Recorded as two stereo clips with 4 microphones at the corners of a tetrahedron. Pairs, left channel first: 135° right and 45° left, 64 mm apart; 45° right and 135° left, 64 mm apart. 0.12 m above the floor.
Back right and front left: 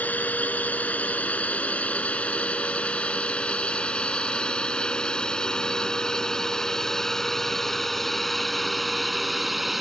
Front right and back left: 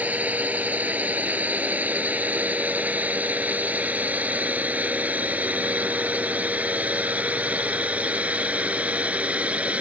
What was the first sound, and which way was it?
A drone, straight behind.